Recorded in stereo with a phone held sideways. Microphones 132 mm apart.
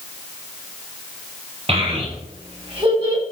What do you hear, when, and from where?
1.7 s a child speaking: 45° right (ahead or behind), 3.5 m; by 3.2 s 35° right (ahead or behind), 4.5 m